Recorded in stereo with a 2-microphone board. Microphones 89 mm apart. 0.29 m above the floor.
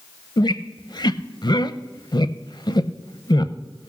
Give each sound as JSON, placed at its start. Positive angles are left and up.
{"t": 0.4, "sound": "a squeak", "side_deg": 55, "distance_m": 0.5}